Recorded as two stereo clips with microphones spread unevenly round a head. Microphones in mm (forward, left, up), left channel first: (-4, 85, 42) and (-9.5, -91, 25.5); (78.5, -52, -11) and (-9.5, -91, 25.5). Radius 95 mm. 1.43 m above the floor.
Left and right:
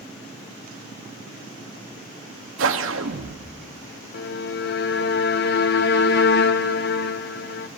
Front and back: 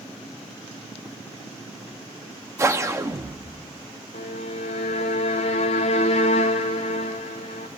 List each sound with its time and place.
2.6 s a whoosh: 105° right, 1.5 m
4.1 s a violin: 55° left, 1.2 m